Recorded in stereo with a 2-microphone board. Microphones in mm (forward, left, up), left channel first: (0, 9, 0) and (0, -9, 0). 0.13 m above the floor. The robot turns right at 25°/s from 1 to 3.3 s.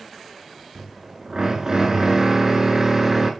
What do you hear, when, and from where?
0.8 s a drill: 80° right, 0.6 m; by 3.3 s 25° right, 0.6 m